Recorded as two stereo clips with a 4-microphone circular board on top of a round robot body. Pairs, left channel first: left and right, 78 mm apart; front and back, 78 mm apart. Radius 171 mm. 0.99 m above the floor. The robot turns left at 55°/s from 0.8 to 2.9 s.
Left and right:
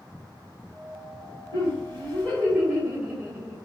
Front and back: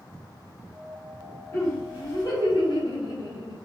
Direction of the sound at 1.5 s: 75° left.